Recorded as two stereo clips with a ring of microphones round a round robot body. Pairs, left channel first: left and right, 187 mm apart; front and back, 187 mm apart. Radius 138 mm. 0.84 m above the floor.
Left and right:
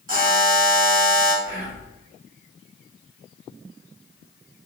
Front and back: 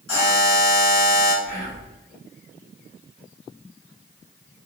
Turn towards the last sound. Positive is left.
turn(degrees=-60)